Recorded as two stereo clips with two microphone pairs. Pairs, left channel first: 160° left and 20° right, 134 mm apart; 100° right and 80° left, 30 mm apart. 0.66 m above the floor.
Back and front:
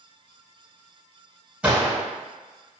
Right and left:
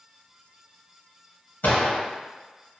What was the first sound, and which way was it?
A gunshot, 100° right.